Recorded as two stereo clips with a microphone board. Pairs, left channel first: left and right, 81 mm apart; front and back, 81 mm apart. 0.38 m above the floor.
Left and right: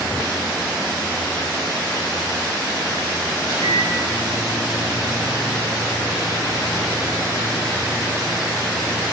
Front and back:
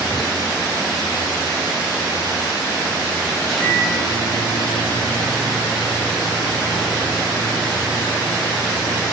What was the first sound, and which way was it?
A microwave, 85° left.